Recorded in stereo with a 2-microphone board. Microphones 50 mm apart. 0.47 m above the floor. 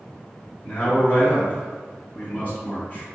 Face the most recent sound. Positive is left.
turn(degrees=40)  # may be behind; listen again after turning